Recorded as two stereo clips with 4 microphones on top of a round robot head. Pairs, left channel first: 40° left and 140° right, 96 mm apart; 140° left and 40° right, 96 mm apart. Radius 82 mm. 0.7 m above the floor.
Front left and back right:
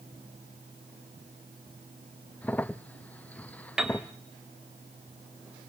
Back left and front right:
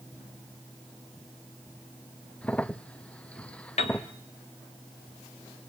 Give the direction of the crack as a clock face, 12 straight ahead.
9 o'clock.